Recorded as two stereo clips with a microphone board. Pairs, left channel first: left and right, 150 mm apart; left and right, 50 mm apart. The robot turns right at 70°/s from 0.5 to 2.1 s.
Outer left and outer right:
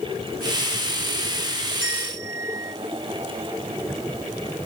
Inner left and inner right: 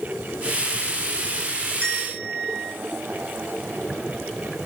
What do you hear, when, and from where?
1.8 s a bell: 35° left (ahead or behind), 3 m; by 2.7 s 15° left (ahead or behind), 3 m